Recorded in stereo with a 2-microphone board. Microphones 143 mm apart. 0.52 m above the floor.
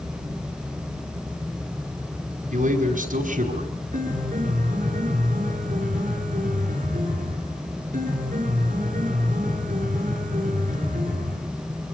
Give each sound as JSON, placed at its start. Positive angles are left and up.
{"t": 2.5, "sound": "a man speaking", "side_deg": -70, "distance_m": 5.0}
{"t": 3.9, "sound": "a piano", "side_deg": -70, "distance_m": 6.5}